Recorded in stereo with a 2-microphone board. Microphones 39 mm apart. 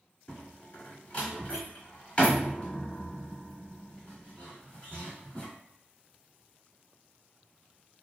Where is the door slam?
30° left (ahead or behind), 1.1 m.